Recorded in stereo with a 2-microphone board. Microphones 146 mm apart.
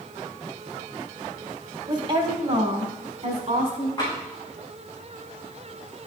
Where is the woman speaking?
35° right (ahead or behind), 1.3 m; by 3.9 s 55° right (ahead or behind), 2 m.